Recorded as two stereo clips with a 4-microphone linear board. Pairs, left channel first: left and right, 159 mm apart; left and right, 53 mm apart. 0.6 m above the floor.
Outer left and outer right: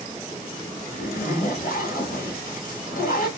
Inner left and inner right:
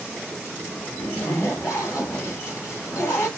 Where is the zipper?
70° left (ahead or behind), 2.5 m.